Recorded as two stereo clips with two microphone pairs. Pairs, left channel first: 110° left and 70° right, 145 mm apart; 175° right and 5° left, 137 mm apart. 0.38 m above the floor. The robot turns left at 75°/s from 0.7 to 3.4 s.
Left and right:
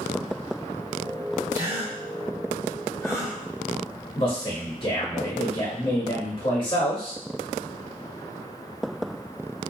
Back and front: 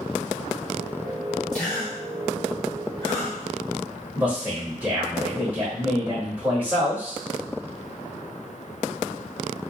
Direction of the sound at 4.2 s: 75° left.